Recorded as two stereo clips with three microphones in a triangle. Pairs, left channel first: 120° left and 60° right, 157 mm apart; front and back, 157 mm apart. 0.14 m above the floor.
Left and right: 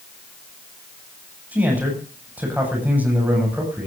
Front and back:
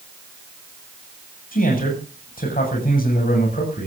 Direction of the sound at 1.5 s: 20° left.